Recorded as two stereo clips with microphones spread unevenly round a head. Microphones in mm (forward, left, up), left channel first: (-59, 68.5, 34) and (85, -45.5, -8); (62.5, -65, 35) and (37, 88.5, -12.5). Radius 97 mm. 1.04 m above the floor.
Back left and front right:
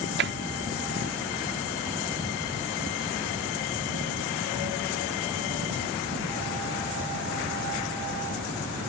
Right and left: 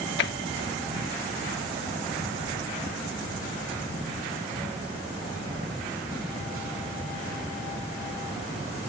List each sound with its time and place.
0.2 s tapping: 70° right